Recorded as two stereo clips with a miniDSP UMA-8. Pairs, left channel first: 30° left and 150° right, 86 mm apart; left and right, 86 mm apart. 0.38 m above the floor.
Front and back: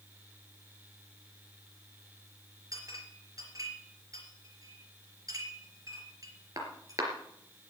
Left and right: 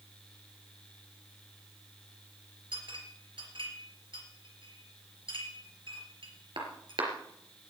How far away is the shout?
No shout in this recording.